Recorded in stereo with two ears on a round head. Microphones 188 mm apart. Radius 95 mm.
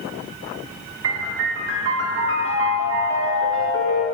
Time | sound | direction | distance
1.0 | a piano | 65° right (ahead or behind) | 1.4 m